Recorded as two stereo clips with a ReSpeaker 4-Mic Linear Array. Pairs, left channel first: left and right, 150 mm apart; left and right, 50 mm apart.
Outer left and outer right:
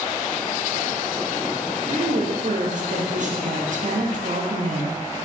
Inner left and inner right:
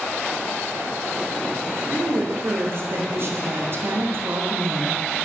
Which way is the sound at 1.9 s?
55° right (ahead or behind).